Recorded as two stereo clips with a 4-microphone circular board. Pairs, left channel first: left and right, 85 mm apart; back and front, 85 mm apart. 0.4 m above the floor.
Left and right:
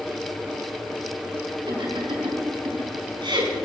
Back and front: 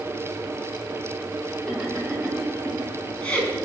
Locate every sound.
1.7 s laughter: 90° right, 4.5 m; by 3.6 s 110° right, 3.5 m